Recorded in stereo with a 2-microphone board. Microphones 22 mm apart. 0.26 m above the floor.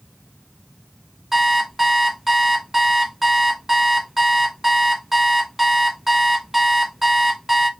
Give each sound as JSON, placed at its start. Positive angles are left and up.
{"t": 1.3, "sound": "an alarm clock", "side_deg": -10, "distance_m": 1.0}